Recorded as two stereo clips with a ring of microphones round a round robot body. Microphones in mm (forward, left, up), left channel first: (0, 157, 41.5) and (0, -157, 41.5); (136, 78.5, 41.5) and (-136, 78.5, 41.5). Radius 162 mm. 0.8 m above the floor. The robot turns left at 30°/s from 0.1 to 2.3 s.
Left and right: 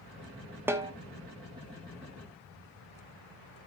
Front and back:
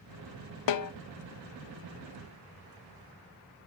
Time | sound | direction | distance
0.7 | a snare drum | 5° right | 0.7 m